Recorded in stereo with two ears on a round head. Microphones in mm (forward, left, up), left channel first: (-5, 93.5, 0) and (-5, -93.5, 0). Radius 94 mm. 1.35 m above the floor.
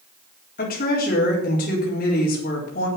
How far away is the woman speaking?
About 4 m.